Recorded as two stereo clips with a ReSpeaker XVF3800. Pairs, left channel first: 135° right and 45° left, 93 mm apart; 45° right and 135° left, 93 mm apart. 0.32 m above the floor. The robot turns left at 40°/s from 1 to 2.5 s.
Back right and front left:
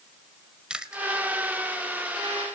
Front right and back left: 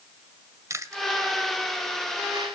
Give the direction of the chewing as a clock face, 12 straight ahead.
8 o'clock.